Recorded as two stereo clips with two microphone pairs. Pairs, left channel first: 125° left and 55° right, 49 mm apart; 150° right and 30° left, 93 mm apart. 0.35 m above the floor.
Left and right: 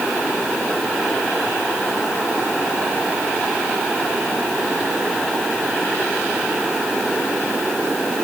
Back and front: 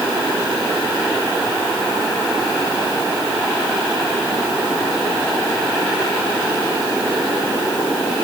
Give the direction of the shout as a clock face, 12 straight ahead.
No shout in this recording.